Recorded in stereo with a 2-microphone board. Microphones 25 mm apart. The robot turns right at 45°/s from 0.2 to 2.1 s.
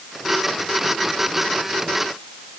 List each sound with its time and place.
Only background noise.